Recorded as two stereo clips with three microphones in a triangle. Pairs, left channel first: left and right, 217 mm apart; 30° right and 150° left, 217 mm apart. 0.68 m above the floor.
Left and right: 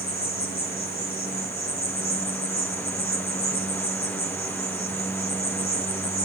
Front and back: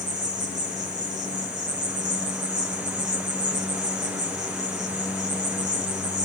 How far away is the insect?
About 4 m.